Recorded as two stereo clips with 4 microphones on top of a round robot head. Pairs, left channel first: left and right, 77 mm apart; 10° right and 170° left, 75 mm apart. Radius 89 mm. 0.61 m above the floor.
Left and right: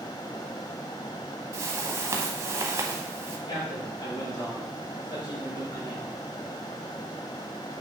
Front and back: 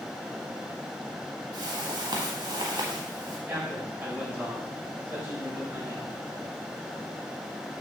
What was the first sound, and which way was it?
A whoosh, 140° right.